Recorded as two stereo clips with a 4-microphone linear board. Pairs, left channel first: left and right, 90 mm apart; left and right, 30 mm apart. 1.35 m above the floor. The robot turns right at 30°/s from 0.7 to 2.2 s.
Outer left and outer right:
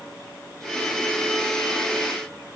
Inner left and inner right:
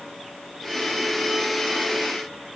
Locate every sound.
Only background noise.